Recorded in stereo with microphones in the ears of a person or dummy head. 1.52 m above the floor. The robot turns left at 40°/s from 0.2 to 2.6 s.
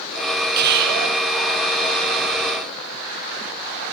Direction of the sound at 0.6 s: 55° right (ahead or behind).